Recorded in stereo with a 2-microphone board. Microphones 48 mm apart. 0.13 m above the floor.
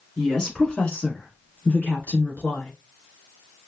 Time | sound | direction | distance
0.2 | a woman speaking | 10° left (ahead or behind) | 1.3 m